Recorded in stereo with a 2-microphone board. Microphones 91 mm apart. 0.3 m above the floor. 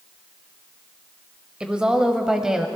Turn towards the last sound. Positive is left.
turn(degrees=-5)  # may be behind; listen again after turning